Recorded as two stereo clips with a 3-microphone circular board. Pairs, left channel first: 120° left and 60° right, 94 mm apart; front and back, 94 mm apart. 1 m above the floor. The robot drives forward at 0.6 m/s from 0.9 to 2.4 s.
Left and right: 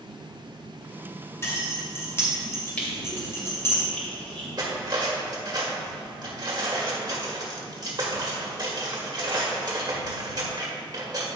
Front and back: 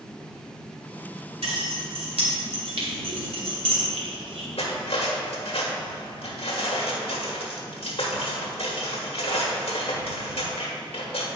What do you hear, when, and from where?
1.4 s keys jangling: straight behind, 2.5 m
2.8 s crushing: 165° right, 2 m
4.6 s cutlery clinking: 15° right, 1.3 m